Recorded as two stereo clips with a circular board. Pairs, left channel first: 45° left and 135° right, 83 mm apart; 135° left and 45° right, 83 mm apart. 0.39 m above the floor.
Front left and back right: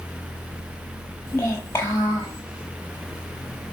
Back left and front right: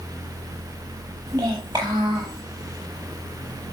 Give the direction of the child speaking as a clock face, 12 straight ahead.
12 o'clock.